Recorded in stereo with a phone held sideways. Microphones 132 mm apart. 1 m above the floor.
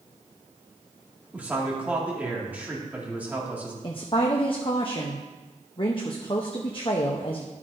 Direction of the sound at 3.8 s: 40° left (ahead or behind).